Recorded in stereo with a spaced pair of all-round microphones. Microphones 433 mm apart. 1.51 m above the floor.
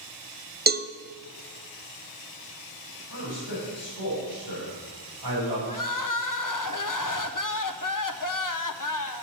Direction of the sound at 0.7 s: 25° right (ahead or behind).